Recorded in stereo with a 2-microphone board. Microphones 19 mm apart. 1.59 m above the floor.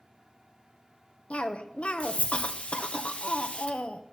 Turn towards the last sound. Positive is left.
turn(degrees=85)